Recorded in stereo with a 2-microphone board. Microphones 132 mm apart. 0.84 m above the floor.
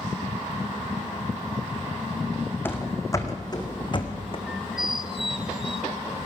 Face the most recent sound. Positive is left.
turn(degrees=0)  # may be behind; listen again after turning